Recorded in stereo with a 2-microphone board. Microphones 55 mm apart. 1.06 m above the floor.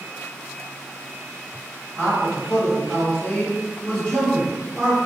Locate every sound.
2.0 s a man speaking: 20° left (ahead or behind), 1.3 m